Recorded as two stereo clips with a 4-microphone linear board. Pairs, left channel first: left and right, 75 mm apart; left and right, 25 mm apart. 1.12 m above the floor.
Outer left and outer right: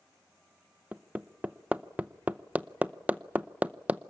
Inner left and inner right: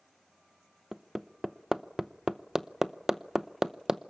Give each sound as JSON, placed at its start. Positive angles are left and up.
{"t": 0.9, "sound": "hammering", "side_deg": -20, "distance_m": 0.7}